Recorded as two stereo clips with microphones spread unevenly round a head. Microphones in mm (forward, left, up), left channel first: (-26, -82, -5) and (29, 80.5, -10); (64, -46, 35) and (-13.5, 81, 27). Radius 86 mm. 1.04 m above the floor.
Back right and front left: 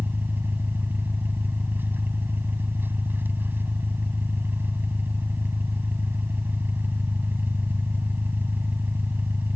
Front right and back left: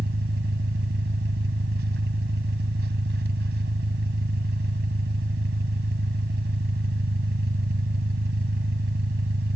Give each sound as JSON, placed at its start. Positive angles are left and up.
{"t": 0.0, "sound": "an engine running", "azimuth_deg": 150}